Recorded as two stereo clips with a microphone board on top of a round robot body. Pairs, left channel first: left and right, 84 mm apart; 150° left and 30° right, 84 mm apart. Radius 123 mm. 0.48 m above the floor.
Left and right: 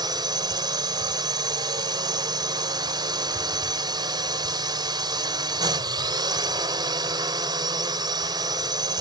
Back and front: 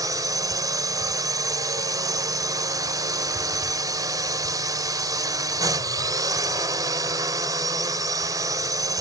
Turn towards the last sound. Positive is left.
turn(degrees=-70)